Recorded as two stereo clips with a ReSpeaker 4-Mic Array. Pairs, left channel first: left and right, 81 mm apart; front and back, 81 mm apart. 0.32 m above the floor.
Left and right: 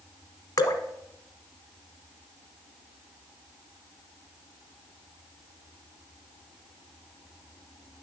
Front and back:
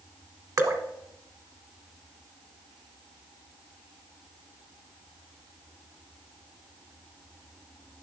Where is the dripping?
135° left, 0.9 m.